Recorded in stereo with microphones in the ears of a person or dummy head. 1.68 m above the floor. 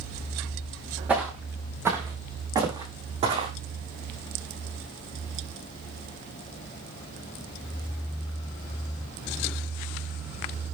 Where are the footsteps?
5° right (ahead or behind), 4.5 m; by 3.5 s 35° right (ahead or behind), 5 m.